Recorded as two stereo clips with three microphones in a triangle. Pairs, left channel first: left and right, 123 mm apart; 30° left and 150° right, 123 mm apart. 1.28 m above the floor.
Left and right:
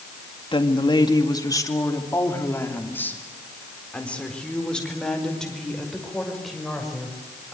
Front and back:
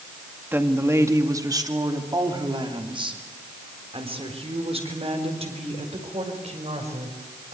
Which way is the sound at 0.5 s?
135° left.